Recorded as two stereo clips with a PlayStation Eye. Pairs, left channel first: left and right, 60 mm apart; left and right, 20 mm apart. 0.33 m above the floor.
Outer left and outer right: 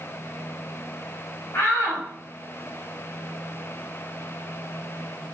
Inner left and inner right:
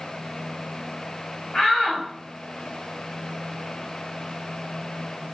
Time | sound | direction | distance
1.5 | a shout | 45° left (ahead or behind) | 2 m